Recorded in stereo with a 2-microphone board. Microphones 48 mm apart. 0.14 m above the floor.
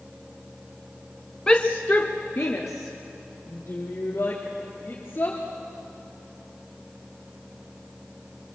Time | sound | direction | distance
1.5 | a shout | 15° left (ahead or behind) | 1.1 m